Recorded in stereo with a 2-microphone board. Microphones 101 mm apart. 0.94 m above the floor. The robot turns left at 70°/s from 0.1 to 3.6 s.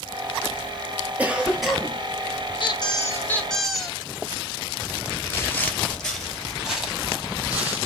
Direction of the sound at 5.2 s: 25° left (ahead or behind).